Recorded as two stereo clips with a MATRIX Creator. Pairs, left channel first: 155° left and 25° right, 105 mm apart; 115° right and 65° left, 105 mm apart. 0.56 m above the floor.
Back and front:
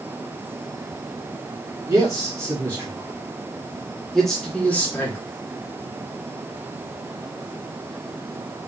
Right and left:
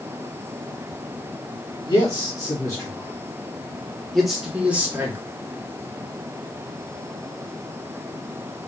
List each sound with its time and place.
1.9 s a man speaking: 75° right, 1.7 m; by 5.2 s 110° left, 1.1 m